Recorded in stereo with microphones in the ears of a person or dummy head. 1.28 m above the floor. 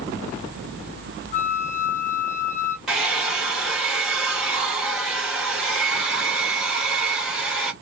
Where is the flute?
35° left (ahead or behind), 1.4 m.